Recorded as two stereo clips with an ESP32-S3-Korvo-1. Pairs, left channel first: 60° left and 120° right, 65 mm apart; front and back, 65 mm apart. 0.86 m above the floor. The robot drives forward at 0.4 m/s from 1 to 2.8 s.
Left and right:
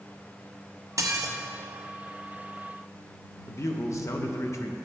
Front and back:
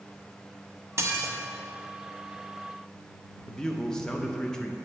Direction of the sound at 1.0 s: 145° right.